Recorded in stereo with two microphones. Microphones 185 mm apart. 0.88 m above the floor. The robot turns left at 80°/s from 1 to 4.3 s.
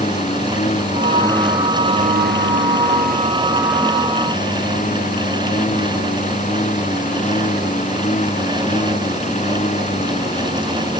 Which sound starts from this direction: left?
A lawn mower, at 0.0 s.